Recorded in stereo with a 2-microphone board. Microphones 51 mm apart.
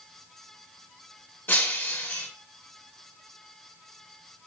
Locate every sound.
1.5 s breaking glass: 35° left (ahead or behind), 1.1 m